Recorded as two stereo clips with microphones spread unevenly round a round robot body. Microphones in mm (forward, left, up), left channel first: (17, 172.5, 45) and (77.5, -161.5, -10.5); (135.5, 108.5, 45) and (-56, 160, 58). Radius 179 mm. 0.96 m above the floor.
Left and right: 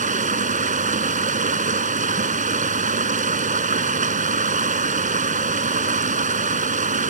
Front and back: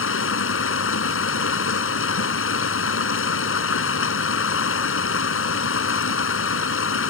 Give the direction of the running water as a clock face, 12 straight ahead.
12 o'clock.